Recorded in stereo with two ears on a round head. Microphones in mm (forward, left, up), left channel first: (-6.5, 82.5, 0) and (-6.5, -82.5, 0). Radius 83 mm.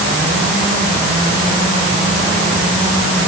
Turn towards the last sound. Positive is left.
No sound to turn to.